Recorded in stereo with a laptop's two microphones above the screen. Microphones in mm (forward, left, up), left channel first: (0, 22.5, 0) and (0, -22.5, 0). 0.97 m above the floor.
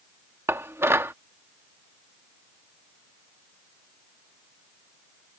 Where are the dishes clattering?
75° right (ahead or behind).